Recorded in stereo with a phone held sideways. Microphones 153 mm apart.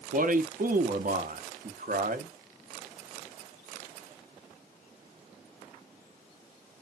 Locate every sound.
0.1 s a man speaking: 60° right (ahead or behind), 0.5 m